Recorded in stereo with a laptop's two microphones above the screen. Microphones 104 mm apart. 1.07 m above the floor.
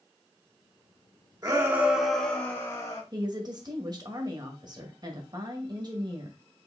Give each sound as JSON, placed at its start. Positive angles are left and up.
{"t": 1.4, "sound": "a shout", "side_deg": -35, "distance_m": 1.2}
{"t": 3.1, "sound": "a woman speaking", "side_deg": -40, "distance_m": 1.0}